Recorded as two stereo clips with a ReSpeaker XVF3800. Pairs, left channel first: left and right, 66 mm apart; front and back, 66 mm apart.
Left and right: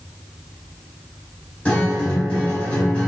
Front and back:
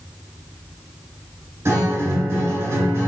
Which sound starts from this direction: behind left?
A guitar, at 1.6 s.